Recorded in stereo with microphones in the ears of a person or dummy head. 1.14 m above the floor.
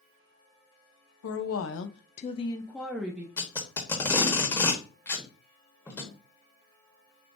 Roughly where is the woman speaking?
Left.